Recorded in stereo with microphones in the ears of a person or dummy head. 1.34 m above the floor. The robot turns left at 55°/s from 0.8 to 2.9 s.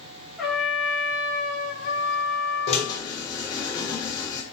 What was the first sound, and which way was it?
A trumpet, straight behind.